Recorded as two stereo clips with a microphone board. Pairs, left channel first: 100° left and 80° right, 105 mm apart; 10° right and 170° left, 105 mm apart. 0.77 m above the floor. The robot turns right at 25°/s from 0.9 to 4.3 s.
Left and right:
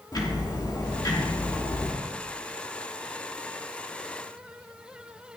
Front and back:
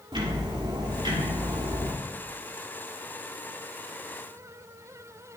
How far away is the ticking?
About 2.5 m.